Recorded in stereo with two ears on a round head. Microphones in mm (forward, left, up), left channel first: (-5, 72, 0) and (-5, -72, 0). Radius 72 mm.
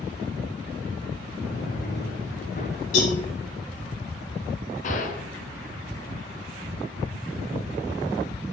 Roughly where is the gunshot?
Left.